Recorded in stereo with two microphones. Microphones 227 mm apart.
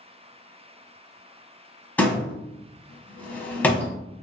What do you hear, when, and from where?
2.0 s a door slam: 5° left (ahead or behind), 1.0 m